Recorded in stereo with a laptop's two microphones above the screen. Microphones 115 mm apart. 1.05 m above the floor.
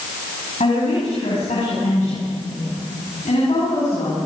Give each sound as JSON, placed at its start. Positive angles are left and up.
{"t": 0.6, "sound": "a woman speaking", "side_deg": 85, "distance_m": 6.5}